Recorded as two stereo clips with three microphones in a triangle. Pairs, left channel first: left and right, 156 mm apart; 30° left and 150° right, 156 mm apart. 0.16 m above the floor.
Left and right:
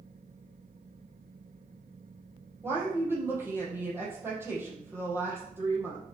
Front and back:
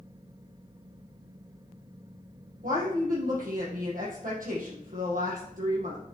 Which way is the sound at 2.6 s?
165° right.